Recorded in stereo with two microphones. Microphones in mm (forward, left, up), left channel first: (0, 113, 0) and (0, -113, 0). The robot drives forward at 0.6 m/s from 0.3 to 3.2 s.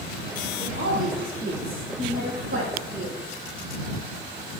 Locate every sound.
0.6 s a woman speaking: 70° right (ahead or behind), 5 m